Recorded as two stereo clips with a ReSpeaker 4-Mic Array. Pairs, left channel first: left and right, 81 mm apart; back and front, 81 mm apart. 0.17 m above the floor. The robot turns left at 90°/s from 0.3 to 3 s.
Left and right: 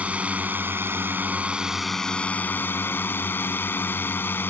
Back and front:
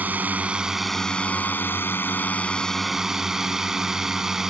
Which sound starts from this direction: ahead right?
A drone, at 0.0 s.